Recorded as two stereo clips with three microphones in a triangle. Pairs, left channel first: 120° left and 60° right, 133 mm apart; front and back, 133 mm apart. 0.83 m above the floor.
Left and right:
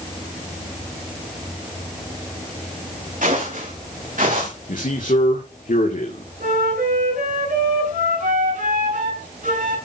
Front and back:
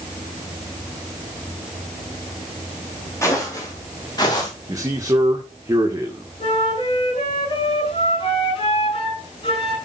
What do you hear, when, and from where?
3.2 s footsteps: 70° right, 6.5 m; by 4.5 s 55° right, 6 m
4.7 s a man speaking: 115° left, 2 m
6.4 s a flute: 50° right, 7.5 m